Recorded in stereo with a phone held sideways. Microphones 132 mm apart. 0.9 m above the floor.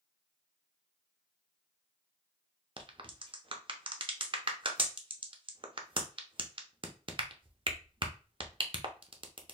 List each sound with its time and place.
2.8 s a crack: 40° right (ahead or behind), 0.6 m